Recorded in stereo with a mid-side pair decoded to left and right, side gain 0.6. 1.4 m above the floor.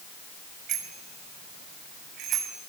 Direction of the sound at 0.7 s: 60° right.